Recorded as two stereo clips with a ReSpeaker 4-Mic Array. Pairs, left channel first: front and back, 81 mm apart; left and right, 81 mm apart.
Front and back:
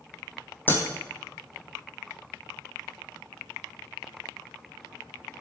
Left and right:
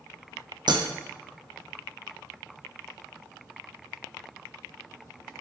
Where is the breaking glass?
65° right, 1.9 m.